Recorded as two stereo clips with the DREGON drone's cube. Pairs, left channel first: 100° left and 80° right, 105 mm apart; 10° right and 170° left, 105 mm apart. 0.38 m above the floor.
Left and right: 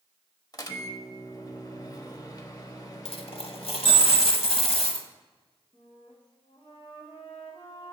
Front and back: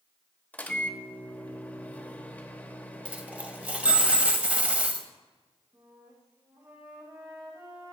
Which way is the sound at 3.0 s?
95° left.